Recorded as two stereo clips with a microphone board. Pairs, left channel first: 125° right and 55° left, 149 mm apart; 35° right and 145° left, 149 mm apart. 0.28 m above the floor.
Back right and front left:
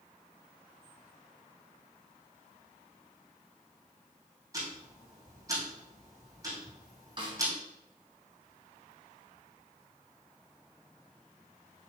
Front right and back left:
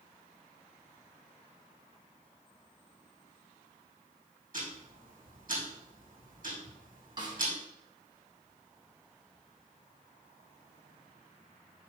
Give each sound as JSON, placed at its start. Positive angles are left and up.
{"t": 4.5, "sound": "ticking", "azimuth_deg": 120, "distance_m": 3.5}
{"t": 7.2, "sound": "a snare drum", "azimuth_deg": 95, "distance_m": 1.8}